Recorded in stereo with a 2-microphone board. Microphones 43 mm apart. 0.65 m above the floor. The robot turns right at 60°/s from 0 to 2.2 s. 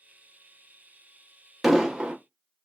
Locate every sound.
1.6 s an explosion: 175° right, 0.8 m; by 2.2 s 145° right, 0.8 m